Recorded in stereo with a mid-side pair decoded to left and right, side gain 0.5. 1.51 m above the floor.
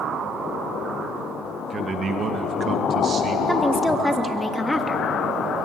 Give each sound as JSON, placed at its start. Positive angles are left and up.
{"t": 1.7, "sound": "a man speaking", "azimuth_deg": -50, "distance_m": 1.9}
{"t": 3.5, "sound": "a woman speaking", "azimuth_deg": 10, "distance_m": 2.5}